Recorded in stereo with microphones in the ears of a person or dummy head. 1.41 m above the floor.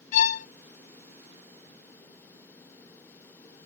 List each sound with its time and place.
0.1 s a violin: 45° left (ahead or behind)